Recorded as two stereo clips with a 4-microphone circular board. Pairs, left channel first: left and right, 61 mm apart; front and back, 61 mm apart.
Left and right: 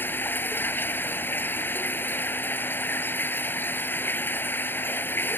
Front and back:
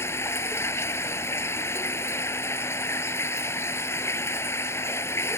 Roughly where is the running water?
Ahead left.